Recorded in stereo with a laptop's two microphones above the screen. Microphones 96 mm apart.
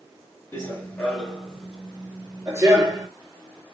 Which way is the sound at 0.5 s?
25° left (ahead or behind).